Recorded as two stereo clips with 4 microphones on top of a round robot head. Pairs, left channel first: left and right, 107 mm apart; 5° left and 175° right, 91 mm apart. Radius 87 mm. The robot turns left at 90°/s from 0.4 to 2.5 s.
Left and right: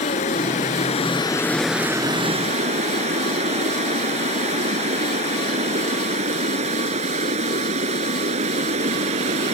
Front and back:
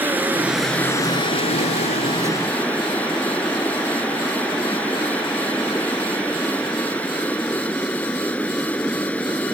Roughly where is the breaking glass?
No breaking glass in this recording.